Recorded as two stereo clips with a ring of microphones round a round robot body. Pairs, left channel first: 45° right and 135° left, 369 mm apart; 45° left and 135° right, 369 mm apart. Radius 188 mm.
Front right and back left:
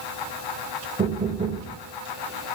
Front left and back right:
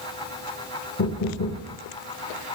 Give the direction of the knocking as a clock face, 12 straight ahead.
10 o'clock.